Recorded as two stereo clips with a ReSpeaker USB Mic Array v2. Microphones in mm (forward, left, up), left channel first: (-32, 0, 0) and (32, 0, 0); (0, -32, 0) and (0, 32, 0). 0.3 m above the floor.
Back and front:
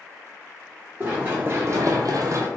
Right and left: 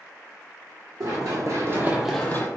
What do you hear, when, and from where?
1.0 s running footsteps: 65° left, 1.5 m; by 2.5 s 40° right, 0.7 m